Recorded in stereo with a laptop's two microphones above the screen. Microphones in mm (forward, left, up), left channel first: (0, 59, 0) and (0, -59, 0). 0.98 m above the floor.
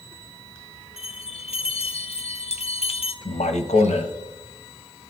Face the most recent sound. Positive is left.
turn(degrees=75)  # may be behind; listen again after turning